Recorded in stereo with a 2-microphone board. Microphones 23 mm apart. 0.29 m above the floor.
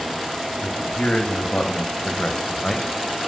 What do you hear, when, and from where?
0.6 s a man speaking: 50° left (ahead or behind), 2 m; by 2.9 s 20° left (ahead or behind), 1.5 m